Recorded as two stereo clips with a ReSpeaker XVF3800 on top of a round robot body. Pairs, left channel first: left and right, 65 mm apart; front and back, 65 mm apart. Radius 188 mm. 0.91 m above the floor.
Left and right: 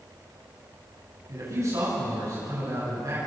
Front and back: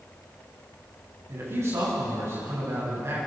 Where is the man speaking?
135° right, 9.5 m.